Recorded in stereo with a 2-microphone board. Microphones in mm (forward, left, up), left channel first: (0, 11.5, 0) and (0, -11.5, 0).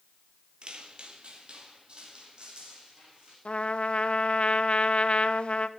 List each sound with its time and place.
0.6 s footsteps: 45° right (ahead or behind), 1.5 m
3.5 s a trumpet: 55° left (ahead or behind), 0.7 m